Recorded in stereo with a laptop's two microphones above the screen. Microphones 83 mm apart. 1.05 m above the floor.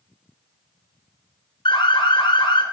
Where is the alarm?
75° left (ahead or behind), 2 m.